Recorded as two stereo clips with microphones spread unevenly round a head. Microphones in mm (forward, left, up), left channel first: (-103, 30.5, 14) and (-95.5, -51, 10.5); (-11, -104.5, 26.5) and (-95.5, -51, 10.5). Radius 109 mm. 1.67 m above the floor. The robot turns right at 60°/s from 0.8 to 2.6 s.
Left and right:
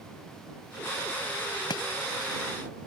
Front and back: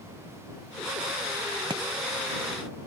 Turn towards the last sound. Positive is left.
turn(degrees=135)